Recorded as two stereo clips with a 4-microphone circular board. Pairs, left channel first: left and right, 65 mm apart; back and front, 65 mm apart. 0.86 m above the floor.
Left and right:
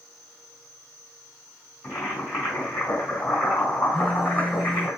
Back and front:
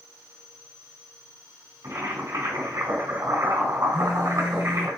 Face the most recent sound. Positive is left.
turn(degrees=-160)